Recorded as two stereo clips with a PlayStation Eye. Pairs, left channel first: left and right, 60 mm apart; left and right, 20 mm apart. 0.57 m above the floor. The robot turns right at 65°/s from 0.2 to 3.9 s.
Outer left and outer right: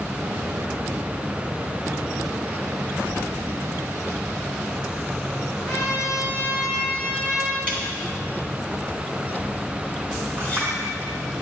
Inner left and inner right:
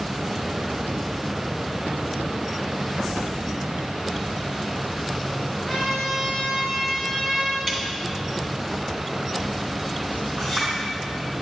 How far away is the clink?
About 4.5 m.